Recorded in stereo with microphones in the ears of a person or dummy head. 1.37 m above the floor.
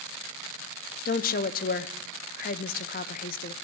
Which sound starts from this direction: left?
A woman speaking, at 1.1 s.